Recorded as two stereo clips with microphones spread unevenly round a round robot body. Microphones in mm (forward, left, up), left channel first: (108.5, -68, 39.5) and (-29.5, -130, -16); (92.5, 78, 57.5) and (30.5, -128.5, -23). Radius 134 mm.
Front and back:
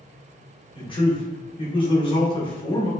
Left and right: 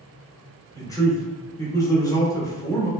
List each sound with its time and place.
0.8 s a man speaking: 35° right, 0.8 m